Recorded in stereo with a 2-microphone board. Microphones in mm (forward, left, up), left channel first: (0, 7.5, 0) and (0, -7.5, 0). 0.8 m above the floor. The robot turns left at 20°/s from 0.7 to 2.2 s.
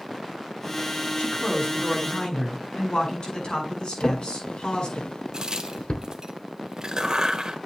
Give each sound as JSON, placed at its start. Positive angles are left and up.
{"t": 1.2, "sound": "a man speaking", "side_deg": 80, "distance_m": 8.0}
{"t": 4.0, "sound": "a drawer", "side_deg": 65, "distance_m": 1.1}
{"t": 5.3, "sound": "a crack", "side_deg": -40, "distance_m": 1.5}